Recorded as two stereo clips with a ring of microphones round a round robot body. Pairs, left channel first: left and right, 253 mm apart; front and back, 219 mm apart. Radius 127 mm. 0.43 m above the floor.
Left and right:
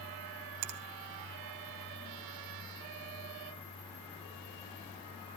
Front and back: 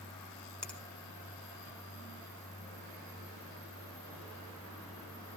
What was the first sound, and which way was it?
A finger snap, 85° right.